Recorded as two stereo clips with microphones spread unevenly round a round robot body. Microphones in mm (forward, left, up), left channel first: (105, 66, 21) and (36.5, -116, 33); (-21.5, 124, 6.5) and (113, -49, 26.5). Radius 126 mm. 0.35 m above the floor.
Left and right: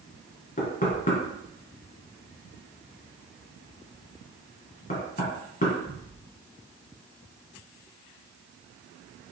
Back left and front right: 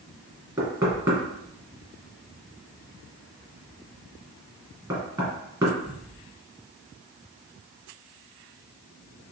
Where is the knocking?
20° left, 2 m.